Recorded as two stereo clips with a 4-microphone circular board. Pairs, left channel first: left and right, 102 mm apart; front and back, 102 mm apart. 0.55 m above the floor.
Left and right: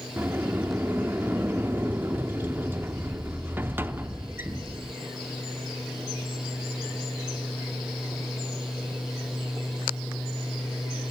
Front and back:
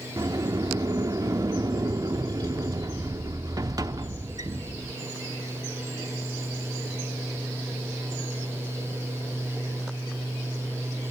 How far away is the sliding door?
About 0.7 m.